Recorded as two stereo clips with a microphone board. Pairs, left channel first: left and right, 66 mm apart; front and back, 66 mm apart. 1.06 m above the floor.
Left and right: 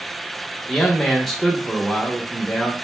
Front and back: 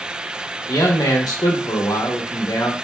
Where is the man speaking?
5° left, 0.8 m.